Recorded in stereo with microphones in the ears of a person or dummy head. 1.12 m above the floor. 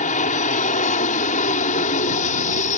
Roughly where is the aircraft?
Left.